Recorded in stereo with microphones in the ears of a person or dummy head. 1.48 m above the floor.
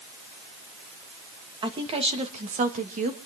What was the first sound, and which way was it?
A woman speaking, 25° right (ahead or behind).